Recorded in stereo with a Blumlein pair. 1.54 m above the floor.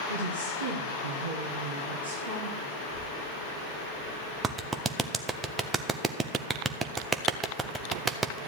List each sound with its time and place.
0.1 s a woman speaking: 70° right, 2.5 m
2.8 s a child speaking: 40° right, 3 m
4.4 s a clap: 20° right, 0.7 m